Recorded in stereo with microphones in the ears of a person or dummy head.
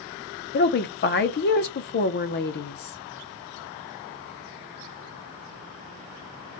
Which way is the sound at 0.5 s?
50° left (ahead or behind).